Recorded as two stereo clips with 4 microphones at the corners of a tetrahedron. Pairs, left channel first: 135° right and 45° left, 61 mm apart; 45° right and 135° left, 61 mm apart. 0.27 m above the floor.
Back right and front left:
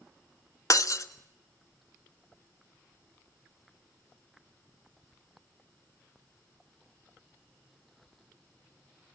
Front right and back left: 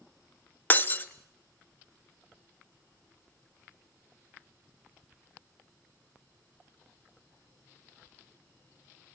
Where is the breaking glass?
105° right, 0.9 m.